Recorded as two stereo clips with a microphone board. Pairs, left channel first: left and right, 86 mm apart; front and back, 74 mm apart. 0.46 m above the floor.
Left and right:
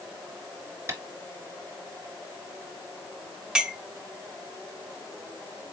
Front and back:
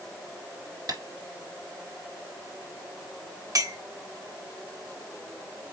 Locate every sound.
0.9 s tapping: 150° right, 2 m
3.5 s a clink: 170° right, 0.9 m